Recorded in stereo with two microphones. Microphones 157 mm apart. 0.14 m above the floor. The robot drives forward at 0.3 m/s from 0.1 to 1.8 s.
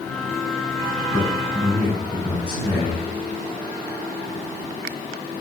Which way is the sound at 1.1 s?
10° left (ahead or behind).